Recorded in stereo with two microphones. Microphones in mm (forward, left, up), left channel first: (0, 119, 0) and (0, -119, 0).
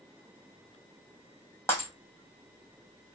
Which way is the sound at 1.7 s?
10° left (ahead or behind).